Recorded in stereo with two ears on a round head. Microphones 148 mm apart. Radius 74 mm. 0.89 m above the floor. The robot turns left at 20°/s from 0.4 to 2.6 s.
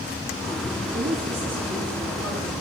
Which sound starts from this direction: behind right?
A woman speaking, at 0.9 s.